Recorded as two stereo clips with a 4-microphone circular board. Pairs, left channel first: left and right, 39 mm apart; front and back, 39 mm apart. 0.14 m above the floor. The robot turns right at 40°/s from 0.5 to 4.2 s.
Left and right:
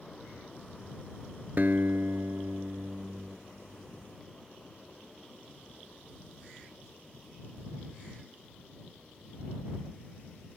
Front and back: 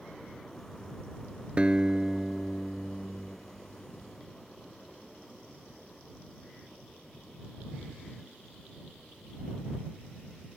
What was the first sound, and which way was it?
A guitar, 125° right.